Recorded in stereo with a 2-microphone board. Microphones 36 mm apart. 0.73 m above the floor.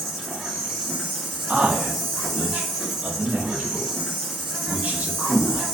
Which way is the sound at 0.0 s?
Centre (ahead or behind).